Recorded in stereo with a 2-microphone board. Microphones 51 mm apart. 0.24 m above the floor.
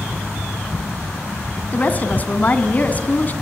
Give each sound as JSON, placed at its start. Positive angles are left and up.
{"t": 1.7, "sound": "a woman speaking", "side_deg": 30, "distance_m": 2.5}